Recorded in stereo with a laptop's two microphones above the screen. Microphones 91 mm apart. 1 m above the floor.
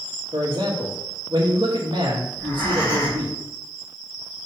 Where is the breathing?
30° left (ahead or behind), 3 m.